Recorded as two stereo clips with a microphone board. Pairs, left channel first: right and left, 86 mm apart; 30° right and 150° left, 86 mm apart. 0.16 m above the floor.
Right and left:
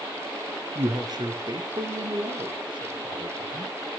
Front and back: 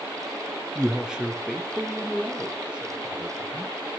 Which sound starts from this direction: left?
A man speaking, at 0.8 s.